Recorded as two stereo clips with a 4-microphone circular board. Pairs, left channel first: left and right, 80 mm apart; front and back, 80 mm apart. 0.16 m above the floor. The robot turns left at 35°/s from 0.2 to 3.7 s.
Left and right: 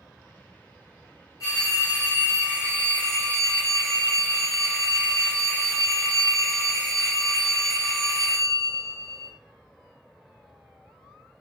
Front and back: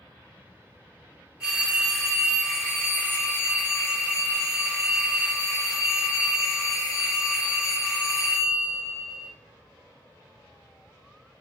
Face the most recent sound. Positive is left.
turn(degrees=25)